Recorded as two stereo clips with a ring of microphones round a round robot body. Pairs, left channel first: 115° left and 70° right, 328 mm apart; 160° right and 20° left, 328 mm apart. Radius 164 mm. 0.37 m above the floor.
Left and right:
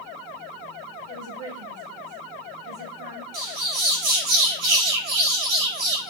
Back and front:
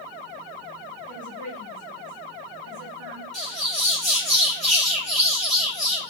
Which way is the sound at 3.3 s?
70° right.